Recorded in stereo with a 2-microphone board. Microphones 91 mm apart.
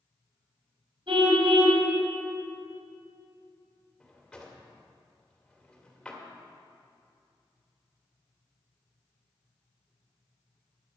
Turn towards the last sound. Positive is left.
turn(degrees=10)  # may be behind; listen again after turning